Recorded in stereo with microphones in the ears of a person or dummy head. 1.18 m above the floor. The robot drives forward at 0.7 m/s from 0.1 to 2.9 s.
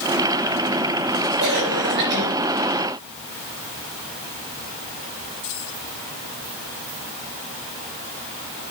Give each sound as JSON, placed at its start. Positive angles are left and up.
{"t": 1.4, "sound": "a cough", "side_deg": -55, "distance_m": 7.5}